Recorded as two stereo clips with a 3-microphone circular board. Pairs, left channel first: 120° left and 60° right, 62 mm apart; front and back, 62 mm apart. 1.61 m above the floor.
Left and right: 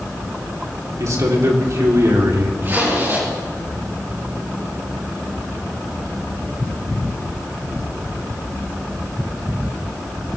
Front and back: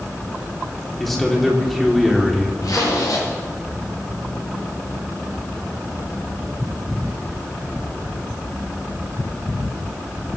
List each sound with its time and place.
1.0 s a man speaking: 90° right, 3.5 m
2.6 s a zipper: 10° right, 8.5 m